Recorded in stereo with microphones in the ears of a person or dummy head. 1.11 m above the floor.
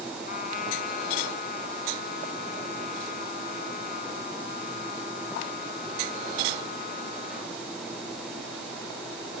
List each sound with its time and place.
0.3 s a trumpet: 50° left (ahead or behind)